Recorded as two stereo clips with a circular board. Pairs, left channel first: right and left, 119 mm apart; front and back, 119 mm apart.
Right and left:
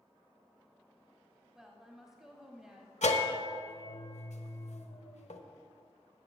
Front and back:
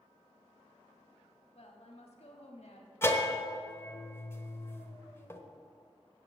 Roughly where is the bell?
Right.